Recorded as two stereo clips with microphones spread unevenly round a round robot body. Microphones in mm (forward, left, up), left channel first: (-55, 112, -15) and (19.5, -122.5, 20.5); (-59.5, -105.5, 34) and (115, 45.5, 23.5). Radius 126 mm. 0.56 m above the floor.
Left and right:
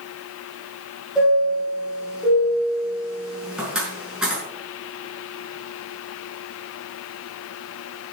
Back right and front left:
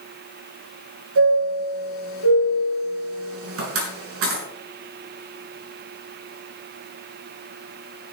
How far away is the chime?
About 6 m.